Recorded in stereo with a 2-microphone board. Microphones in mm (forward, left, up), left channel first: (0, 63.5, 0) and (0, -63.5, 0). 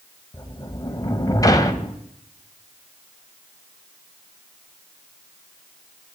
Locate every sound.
0.3 s a sliding door: 30° left (ahead or behind), 0.9 m